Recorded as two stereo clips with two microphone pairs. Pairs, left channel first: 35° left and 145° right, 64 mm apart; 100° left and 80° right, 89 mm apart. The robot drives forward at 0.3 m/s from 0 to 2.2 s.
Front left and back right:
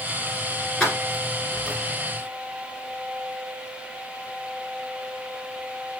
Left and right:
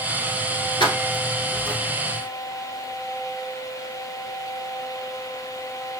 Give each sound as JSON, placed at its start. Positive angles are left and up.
{"t": 0.8, "sound": "keys jangling", "azimuth_deg": 120, "distance_m": 1.5}